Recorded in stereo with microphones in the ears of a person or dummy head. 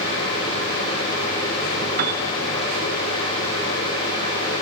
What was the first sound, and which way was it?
A piano, 50° right (ahead or behind).